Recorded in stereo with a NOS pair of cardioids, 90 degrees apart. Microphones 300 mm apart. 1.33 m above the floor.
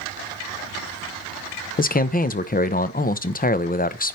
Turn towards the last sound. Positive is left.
turn(degrees=30)